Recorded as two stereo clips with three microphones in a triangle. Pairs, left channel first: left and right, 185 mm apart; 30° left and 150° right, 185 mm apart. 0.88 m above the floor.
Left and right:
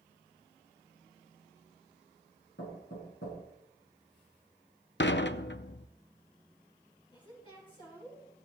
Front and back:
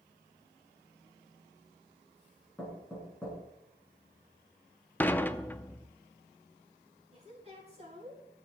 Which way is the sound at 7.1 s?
155° left.